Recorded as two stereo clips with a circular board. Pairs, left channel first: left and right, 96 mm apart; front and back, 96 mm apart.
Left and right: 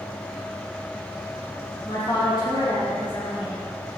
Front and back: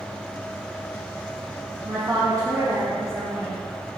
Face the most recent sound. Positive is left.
turn(degrees=110)